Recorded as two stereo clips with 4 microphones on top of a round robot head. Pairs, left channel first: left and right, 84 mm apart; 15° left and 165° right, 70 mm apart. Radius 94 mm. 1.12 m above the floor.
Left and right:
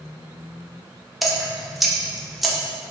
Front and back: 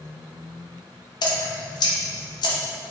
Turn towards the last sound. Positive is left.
turn(degrees=0)